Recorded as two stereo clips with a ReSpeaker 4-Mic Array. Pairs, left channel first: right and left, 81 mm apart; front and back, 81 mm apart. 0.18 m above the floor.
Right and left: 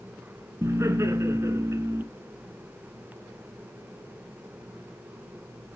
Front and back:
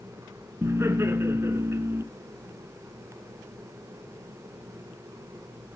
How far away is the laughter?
About 1.9 m.